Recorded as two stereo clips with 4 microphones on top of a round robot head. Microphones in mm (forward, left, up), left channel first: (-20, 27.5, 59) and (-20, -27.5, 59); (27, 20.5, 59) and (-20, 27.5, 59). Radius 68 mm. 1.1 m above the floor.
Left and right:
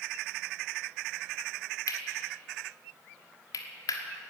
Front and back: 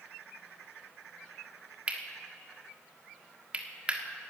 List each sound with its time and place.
1.9 s cutlery clinking: 105° left, 1.4 m